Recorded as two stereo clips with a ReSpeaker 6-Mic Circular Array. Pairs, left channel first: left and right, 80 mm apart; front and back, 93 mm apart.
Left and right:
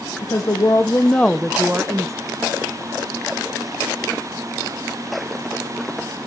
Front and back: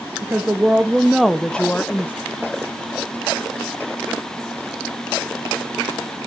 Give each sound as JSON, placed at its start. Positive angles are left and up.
{"t": 0.2, "sound": "a woman speaking", "azimuth_deg": 115, "distance_m": 0.9}